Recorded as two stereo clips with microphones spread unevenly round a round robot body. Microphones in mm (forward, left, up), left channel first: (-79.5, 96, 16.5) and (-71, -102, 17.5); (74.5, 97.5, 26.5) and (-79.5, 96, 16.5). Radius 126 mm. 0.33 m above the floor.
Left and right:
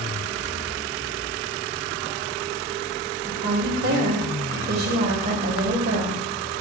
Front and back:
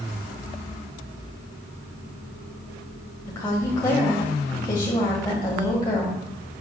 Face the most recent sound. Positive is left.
turn(degrees=-65)